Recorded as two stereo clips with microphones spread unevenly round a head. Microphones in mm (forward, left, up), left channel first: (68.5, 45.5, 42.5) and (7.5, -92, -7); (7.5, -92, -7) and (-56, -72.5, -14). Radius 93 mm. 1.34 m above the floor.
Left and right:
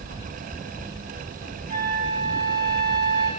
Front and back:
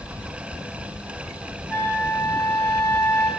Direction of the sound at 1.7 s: 85° right.